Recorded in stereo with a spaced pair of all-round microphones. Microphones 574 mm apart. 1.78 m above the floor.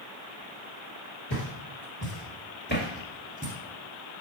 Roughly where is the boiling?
I don't hear boiling.